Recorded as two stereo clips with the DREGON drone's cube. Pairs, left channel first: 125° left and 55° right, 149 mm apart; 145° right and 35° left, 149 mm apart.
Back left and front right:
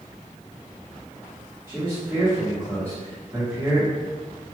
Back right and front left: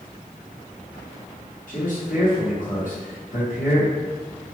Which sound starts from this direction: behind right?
A man speaking, at 1.7 s.